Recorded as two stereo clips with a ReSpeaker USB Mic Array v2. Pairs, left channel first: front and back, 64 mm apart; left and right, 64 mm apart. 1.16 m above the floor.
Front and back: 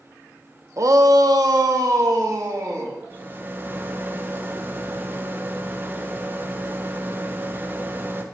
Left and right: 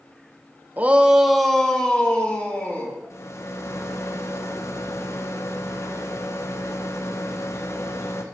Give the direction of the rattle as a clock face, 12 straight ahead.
8 o'clock.